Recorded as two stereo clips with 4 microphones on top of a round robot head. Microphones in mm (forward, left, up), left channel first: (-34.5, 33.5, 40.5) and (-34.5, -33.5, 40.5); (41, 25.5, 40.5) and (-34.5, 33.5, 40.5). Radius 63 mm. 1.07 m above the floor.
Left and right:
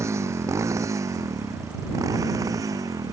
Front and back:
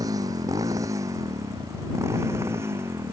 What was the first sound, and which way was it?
A motorcycle, 135° right.